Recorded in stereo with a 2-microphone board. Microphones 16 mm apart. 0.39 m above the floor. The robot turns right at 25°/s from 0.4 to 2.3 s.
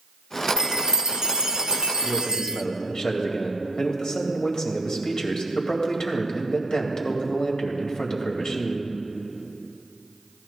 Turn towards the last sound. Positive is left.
turn(degrees=55)  # may be behind; listen again after turning